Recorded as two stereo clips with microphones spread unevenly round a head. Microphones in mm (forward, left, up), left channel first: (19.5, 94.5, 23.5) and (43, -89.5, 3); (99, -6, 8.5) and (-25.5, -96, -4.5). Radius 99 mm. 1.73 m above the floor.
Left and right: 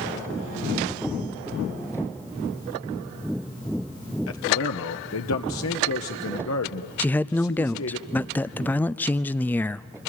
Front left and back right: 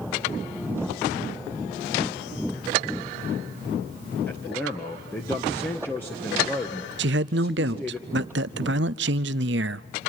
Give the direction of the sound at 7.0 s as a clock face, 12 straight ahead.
6 o'clock.